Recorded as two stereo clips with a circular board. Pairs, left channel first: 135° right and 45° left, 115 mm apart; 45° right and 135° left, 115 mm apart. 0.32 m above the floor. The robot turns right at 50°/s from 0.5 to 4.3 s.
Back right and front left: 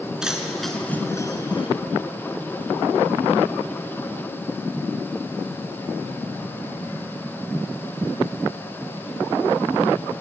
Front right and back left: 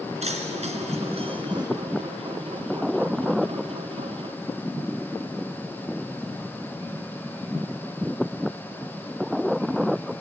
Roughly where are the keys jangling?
Behind left.